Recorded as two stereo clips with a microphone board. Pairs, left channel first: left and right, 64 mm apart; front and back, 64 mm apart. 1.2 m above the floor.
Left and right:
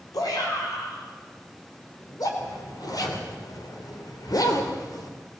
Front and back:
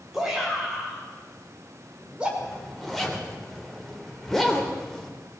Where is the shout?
95° left, 5.5 m; by 2.3 s 105° left, 4.5 m.